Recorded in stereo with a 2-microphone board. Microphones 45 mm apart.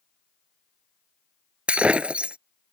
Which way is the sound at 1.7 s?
25° right (ahead or behind).